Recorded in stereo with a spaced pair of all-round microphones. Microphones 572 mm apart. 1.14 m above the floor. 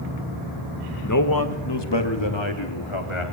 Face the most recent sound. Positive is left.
turn(degrees=55)  # may be behind; listen again after turning